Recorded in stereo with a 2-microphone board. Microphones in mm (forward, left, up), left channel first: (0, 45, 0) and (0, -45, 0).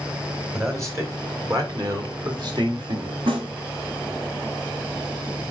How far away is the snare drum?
About 3 m.